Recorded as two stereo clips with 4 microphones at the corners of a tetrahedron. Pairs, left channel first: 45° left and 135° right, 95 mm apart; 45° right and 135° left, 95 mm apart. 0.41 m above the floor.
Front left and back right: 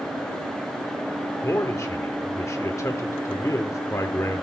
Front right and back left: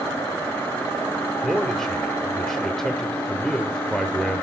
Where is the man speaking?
35° left, 0.9 m.